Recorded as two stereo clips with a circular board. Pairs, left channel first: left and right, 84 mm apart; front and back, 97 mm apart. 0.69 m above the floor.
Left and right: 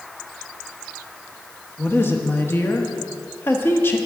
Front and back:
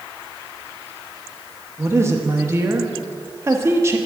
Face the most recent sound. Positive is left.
turn(degrees=135)